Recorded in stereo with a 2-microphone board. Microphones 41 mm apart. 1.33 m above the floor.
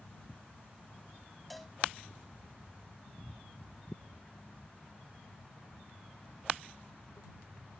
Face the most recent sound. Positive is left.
turn(degrees=0)  # may be behind; listen again after turning